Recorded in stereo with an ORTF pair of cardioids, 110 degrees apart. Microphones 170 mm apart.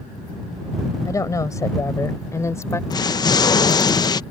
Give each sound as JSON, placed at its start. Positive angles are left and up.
{"t": 1.0, "sound": "a woman speaking", "azimuth_deg": 20}
{"t": 2.9, "sound": "an explosion", "azimuth_deg": 25}